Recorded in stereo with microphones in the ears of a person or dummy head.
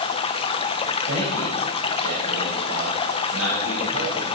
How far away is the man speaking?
About 6 m.